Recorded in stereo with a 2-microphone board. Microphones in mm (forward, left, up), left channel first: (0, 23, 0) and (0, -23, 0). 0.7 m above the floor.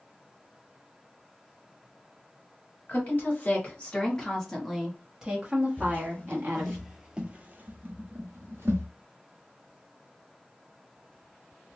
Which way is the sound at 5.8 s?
40° left (ahead or behind).